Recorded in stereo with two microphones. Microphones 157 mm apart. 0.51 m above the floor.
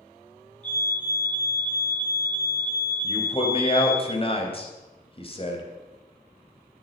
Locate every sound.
0.6 s a fire alarm: 5° left (ahead or behind), 5.5 m
3.0 s a man speaking: 35° left (ahead or behind), 3.5 m